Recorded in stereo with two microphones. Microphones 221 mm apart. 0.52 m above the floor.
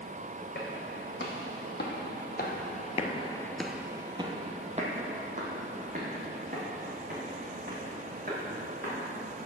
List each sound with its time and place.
0.6 s footsteps: 45° left (ahead or behind), 1.9 m; by 9.0 s 40° right (ahead or behind), 3.5 m